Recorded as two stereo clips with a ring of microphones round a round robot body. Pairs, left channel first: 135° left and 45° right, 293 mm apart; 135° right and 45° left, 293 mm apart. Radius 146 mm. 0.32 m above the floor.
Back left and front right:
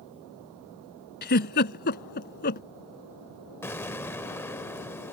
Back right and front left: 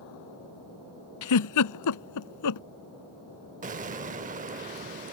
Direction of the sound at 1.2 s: 165° right.